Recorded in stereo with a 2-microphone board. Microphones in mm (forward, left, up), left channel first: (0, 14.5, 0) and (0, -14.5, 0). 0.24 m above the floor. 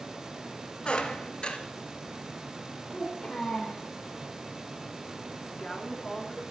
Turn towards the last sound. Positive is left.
turn(degrees=25)  # may be behind; listen again after turning